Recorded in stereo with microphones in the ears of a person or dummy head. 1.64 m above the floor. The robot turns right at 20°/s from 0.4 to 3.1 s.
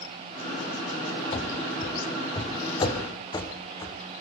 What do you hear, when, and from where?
1.3 s running footsteps: 40° left (ahead or behind), 2.5 m; by 4.2 s 20° left (ahead or behind), 4.5 m